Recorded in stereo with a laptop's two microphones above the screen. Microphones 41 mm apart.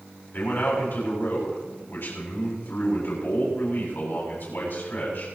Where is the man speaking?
65° left (ahead or behind), 7.5 m.